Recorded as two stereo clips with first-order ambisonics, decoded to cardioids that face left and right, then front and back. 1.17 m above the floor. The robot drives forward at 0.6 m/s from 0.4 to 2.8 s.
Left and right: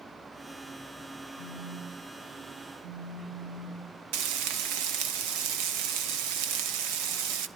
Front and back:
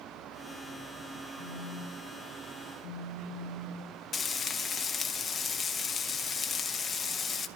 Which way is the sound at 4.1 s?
70° right.